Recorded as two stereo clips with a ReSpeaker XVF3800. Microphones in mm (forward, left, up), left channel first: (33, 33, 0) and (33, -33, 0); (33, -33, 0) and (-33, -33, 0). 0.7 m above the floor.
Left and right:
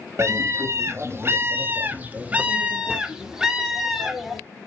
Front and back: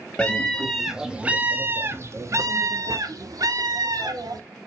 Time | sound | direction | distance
0.2 | a scream | 70° right | 1.0 m